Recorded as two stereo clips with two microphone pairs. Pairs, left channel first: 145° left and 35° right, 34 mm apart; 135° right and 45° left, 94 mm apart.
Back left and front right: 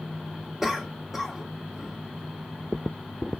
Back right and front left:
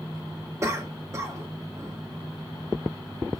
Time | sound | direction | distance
0.6 | a cough | 45° left | 1.3 m